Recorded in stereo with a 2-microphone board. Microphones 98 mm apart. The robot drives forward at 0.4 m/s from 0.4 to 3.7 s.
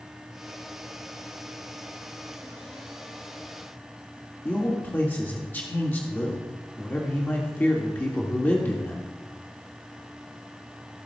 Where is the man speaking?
20° left (ahead or behind), 1.3 m.